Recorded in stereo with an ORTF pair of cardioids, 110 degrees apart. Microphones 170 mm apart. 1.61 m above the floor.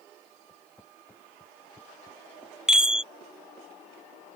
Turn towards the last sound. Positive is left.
turn(degrees=-5)